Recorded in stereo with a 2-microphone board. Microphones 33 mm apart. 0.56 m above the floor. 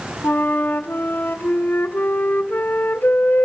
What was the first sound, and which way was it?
A flute, 75° left (ahead or behind).